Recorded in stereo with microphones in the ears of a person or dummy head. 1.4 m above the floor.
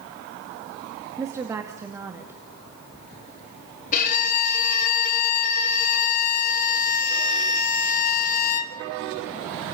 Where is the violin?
45° left (ahead or behind), 2 m.